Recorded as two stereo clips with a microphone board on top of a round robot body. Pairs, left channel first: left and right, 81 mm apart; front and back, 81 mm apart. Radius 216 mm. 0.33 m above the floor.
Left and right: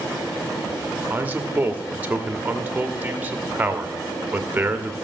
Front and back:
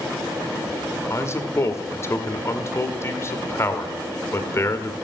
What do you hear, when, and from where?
1.1 s a man speaking: 35° right, 1.5 m